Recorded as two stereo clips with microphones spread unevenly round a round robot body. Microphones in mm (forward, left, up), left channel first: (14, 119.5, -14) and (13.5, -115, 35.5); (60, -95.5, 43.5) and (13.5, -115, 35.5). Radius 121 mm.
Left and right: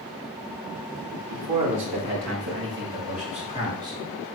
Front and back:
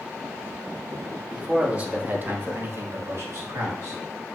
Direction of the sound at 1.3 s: 85° right.